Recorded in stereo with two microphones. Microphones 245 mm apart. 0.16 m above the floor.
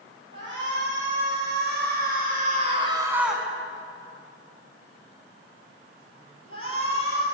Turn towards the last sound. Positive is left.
turn(degrees=60)  # may be behind; listen again after turning